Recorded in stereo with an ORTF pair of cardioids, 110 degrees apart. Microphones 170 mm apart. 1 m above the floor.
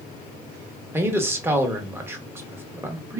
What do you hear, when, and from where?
0.9 s a man speaking: 15° right, 1.0 m